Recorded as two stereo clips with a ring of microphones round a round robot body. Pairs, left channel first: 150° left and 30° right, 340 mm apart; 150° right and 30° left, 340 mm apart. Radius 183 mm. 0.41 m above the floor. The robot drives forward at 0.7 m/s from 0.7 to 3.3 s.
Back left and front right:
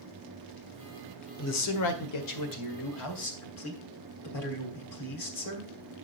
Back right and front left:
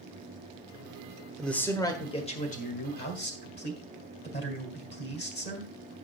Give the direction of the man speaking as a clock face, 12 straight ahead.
8 o'clock.